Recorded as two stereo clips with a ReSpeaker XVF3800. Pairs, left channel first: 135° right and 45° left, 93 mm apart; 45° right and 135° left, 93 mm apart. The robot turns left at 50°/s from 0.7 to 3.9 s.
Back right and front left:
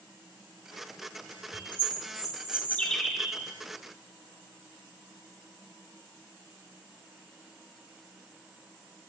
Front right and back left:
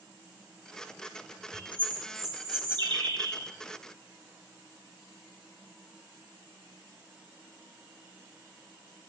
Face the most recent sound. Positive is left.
turn(degrees=95)